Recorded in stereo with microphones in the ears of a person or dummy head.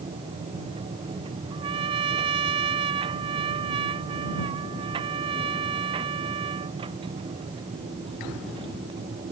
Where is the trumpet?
30° right (ahead or behind).